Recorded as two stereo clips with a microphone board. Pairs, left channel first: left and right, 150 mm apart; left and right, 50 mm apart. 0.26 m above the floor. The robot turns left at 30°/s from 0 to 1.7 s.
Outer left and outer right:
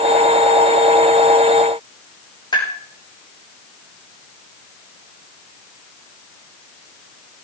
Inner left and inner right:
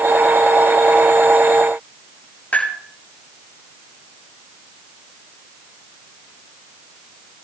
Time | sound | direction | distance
2.5 | tapping | 30° left (ahead or behind) | 7 m